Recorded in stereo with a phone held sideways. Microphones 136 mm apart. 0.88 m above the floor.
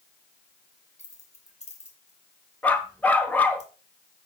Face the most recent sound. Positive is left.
turn(degrees=10)  # may be behind; listen again after turning